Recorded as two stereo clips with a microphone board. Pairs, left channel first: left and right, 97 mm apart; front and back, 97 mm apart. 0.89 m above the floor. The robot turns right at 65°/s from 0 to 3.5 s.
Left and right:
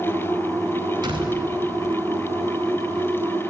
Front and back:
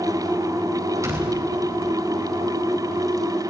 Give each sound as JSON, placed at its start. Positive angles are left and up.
{"t": 1.0, "sound": "a door slam", "azimuth_deg": -125, "distance_m": 4.0}